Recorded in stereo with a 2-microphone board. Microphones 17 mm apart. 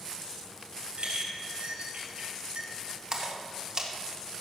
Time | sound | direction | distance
1.0 | a clink | 80° right | 4.5 m
3.1 | a splash | 40° right (ahead or behind) | 1.7 m